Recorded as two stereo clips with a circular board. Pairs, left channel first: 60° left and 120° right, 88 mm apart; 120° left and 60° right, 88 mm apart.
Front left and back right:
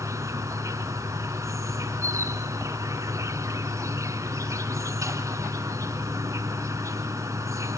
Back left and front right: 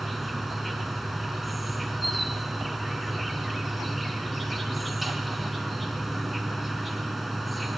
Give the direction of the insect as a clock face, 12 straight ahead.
5 o'clock.